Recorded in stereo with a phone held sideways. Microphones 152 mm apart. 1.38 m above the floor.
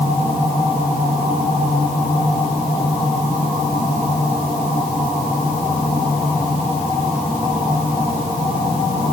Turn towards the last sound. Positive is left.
No sound to turn to.